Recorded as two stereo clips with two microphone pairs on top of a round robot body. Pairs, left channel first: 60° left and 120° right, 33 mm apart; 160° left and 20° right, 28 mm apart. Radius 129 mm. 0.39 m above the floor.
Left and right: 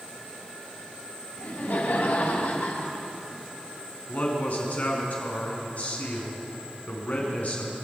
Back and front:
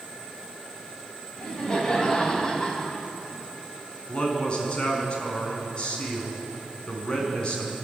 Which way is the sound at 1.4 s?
95° left.